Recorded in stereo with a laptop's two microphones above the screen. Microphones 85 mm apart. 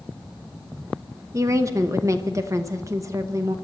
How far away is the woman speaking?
About 0.9 m.